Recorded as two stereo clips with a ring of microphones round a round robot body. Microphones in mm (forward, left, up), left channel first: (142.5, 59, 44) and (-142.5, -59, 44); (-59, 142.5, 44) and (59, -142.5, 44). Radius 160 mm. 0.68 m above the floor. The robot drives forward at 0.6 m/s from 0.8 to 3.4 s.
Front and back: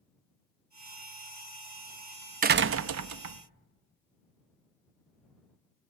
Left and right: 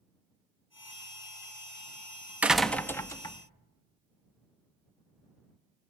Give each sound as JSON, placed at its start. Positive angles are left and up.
{"t": 2.4, "sound": "a door slam", "azimuth_deg": -145, "distance_m": 0.5}